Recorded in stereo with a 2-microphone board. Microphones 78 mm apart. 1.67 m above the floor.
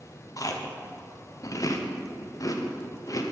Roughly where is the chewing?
Left.